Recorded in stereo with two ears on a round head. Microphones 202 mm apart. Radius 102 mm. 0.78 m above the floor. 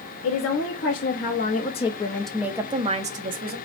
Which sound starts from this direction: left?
A woman speaking, at 0.2 s.